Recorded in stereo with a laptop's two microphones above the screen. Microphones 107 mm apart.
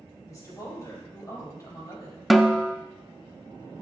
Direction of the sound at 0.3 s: 30° left (ahead or behind).